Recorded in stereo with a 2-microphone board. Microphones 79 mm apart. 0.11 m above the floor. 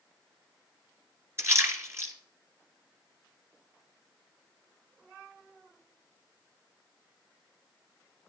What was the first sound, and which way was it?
A splash, 30° right (ahead or behind).